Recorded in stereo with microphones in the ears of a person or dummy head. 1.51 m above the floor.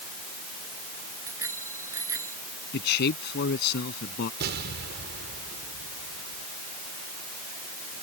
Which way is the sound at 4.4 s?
60° right (ahead or behind).